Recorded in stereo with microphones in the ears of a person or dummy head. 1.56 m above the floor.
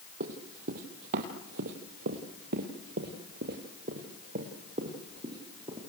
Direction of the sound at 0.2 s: 45° right (ahead or behind).